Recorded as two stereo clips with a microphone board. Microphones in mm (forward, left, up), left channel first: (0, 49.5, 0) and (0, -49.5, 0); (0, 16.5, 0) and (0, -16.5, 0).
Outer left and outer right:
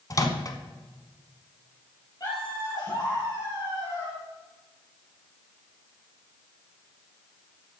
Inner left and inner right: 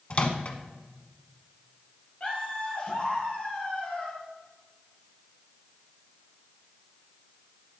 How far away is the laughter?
About 4.5 m.